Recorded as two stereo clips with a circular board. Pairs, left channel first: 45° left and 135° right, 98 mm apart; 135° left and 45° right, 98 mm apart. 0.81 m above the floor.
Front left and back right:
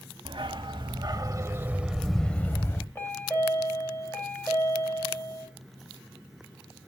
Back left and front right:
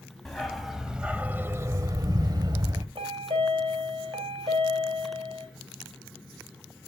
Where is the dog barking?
140° right, 1.1 m; by 2.9 s 10° right, 0.9 m.